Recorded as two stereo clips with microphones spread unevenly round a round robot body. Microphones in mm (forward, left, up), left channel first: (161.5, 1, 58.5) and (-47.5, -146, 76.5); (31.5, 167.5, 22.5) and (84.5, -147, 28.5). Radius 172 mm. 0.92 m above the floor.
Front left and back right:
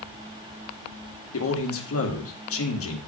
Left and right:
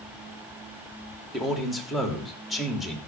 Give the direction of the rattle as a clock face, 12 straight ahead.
I don't hear a rattle.